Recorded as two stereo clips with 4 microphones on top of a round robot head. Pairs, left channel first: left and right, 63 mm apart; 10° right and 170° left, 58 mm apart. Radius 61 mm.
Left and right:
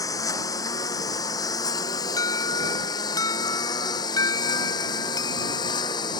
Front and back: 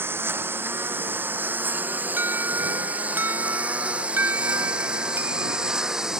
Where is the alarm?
115° left.